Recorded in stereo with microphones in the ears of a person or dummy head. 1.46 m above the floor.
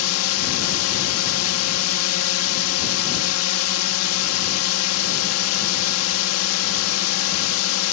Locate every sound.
0.0 s a drone: 80° left